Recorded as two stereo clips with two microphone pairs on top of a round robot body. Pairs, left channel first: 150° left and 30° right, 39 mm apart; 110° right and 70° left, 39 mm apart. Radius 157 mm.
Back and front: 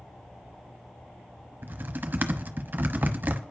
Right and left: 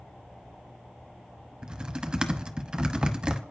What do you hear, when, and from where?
1.6 s typing on a keyboard: 5° left, 1.0 m